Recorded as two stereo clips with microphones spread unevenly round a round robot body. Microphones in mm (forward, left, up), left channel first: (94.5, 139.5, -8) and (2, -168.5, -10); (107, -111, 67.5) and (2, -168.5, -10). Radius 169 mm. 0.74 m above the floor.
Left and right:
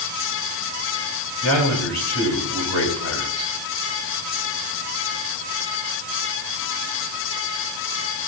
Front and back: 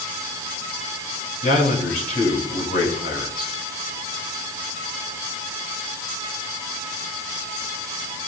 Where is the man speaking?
35° left, 8.5 m.